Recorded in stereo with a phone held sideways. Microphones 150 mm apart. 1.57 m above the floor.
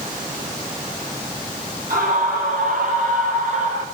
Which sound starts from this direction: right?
A scream, at 1.9 s.